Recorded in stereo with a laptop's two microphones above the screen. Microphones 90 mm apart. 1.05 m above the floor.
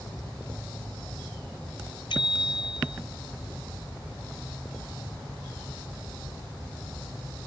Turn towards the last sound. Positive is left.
turn(degrees=70)  # may be behind; listen again after turning